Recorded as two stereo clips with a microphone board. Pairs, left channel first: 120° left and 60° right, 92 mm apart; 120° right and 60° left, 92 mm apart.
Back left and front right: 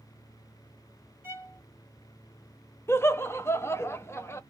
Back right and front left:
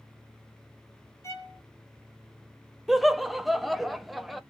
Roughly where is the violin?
Right.